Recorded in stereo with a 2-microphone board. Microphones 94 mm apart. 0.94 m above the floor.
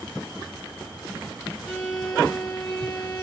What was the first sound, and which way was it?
A violin, 5° left (ahead or behind).